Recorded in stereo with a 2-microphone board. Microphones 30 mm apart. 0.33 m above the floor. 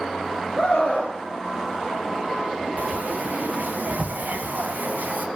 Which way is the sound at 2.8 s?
75° right (ahead or behind).